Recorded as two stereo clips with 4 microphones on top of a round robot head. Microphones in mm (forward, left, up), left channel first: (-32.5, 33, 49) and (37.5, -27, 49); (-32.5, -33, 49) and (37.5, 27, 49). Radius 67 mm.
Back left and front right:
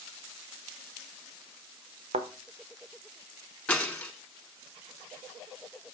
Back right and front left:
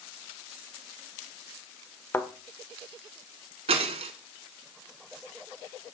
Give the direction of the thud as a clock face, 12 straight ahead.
2 o'clock.